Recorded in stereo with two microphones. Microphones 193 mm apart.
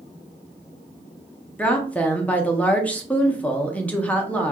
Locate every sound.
1.6 s a woman speaking: 10° left (ahead or behind), 0.5 m